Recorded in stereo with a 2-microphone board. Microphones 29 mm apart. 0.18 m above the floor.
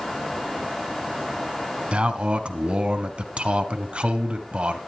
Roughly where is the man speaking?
Right.